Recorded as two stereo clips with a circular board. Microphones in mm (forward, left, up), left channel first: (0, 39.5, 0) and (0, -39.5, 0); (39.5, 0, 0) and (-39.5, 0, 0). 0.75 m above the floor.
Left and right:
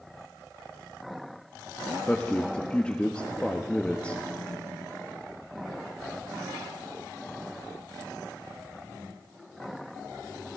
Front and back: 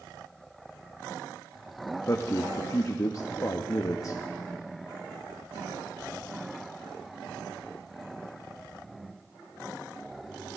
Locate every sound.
2.1 s a man speaking: 20° left, 0.6 m